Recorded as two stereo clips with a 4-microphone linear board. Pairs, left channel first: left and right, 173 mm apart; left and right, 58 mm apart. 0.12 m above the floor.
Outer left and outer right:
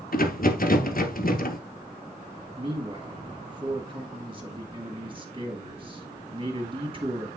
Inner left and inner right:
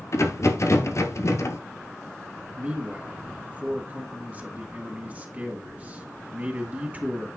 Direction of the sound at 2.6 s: 30° right (ahead or behind).